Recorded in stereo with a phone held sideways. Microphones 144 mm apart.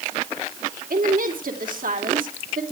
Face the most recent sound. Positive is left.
turn(degrees=-75)  # may be behind; listen again after turning